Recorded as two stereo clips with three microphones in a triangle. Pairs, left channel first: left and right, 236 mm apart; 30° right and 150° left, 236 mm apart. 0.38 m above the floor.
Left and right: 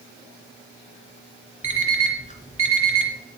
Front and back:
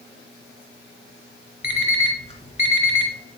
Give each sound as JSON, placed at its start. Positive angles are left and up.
{"t": 1.6, "sound": "an alarm clock", "azimuth_deg": 30, "distance_m": 2.5}